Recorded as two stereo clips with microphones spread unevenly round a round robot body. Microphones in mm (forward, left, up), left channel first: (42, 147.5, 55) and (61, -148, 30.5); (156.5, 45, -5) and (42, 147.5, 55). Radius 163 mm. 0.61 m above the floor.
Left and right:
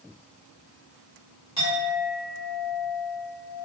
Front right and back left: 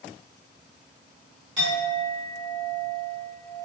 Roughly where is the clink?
Behind.